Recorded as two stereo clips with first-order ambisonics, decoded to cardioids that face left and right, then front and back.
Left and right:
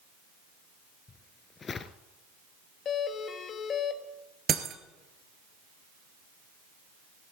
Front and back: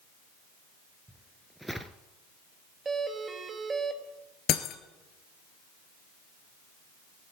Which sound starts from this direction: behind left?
A doorbell, at 2.9 s.